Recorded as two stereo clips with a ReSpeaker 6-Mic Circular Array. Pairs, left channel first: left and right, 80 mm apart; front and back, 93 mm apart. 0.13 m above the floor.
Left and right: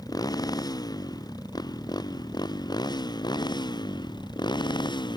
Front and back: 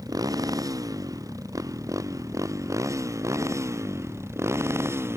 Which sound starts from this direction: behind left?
A motorcycle, at 0.0 s.